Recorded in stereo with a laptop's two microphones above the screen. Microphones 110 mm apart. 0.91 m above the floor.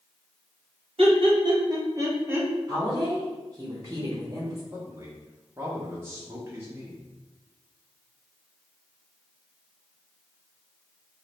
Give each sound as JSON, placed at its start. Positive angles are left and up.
{"t": 1.0, "sound": "laughter", "side_deg": -55, "distance_m": 1.2}
{"t": 2.7, "sound": "a woman speaking", "side_deg": -25, "distance_m": 0.7}
{"t": 4.7, "sound": "a man speaking", "side_deg": -20, "distance_m": 0.5}